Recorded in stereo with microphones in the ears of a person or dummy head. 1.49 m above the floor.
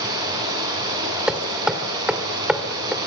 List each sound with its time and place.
0.0 s running water: 20° right (ahead or behind), 7.5 m
1.3 s hammering: 5° right (ahead or behind), 1.7 m